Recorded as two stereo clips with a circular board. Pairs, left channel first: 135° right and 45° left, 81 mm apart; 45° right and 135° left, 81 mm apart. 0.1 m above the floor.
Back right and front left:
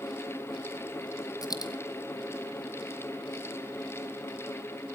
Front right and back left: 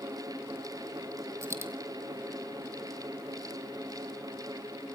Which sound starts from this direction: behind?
A dropped coin, at 1.4 s.